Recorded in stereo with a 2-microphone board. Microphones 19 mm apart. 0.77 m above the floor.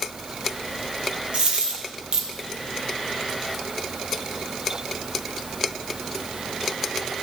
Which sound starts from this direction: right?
A dropped coin, at 1.3 s.